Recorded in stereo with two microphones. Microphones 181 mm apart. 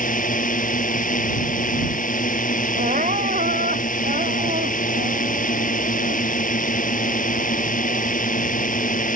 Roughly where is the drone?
Left.